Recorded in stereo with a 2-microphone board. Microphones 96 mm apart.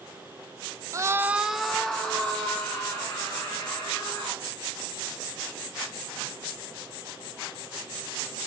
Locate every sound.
0.9 s a scream: 30° right (ahead or behind), 0.6 m; by 4.4 s 15° left (ahead or behind), 4.5 m